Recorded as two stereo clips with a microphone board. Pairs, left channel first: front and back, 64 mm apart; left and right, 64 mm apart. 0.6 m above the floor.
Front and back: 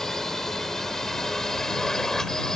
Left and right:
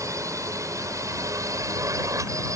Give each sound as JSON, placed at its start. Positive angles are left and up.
{"t": 0.0, "sound": "a drone", "azimuth_deg": -85}